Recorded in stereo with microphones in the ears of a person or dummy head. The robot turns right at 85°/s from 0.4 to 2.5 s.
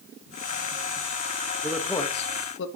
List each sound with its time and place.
1.6 s a man speaking: 15° right (ahead or behind), 1.0 m; by 2.7 s 60° left (ahead or behind), 1.0 m